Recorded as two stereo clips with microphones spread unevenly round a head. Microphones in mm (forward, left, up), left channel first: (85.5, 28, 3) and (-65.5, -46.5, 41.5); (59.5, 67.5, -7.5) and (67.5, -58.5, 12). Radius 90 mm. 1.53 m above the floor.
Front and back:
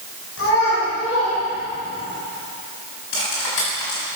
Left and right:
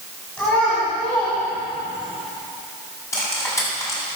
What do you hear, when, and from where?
0.4 s a child speaking: 15° left, 7.5 m; by 2.1 s 25° left, 8.5 m
3.1 s cutlery clinking: 25° left, 7.5 m